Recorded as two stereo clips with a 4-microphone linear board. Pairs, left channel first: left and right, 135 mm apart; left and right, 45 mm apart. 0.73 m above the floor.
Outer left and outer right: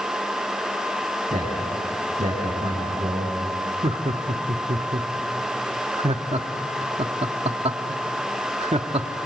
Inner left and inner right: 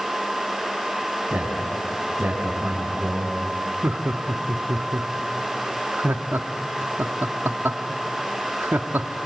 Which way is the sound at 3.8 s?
50° right (ahead or behind).